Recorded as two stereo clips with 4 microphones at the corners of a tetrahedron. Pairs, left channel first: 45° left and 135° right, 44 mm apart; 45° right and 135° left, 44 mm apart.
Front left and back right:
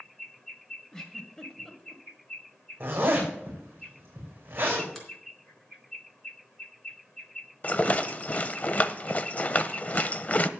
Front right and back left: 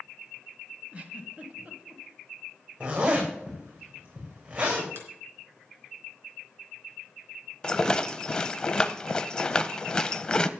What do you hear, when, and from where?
0.9 s a giggle: 115° left, 1.5 m
2.8 s a zipper: 170° right, 6.5 m
5.0 s a finger snap: 130° left, 3.5 m
7.6 s a rattle: 15° left, 0.6 m